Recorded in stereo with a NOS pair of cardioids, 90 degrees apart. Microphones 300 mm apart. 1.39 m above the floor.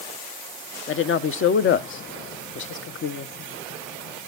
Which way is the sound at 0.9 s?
45° left.